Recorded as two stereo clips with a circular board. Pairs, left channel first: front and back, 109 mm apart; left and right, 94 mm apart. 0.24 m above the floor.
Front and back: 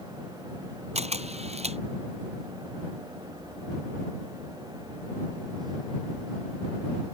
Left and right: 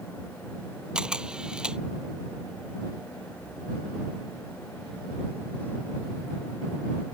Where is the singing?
I don't hear singing.